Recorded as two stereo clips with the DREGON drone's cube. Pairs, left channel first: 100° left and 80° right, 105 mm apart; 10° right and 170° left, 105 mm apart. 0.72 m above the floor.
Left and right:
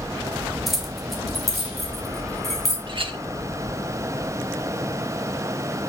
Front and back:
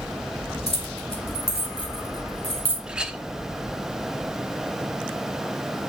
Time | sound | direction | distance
0.7 | keys jangling | 10° left | 2.0 m
2.9 | a clink | 110° right | 0.8 m